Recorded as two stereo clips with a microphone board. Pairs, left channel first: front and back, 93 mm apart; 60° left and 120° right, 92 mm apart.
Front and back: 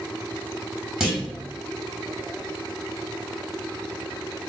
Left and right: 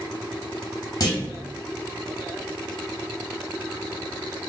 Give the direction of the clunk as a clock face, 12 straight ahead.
9 o'clock.